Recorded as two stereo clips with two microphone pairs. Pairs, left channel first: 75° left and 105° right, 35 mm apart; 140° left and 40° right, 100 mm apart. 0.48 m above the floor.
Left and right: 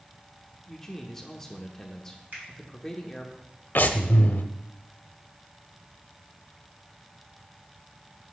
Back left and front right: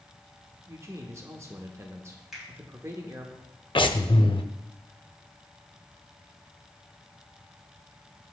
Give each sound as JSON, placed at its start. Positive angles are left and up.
{"t": 0.7, "sound": "a man speaking", "azimuth_deg": 0, "distance_m": 0.8}
{"t": 2.3, "sound": "a finger snap", "azimuth_deg": -130, "distance_m": 3.0}
{"t": 3.8, "sound": "breathing", "azimuth_deg": 105, "distance_m": 0.6}